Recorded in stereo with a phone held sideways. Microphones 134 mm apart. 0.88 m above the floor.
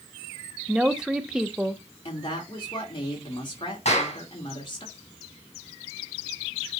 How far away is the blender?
I don't hear a blender.